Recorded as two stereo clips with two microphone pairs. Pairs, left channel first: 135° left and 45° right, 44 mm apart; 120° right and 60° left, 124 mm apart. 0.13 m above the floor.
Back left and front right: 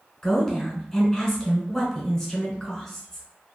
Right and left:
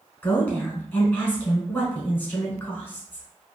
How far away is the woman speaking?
About 1.2 m.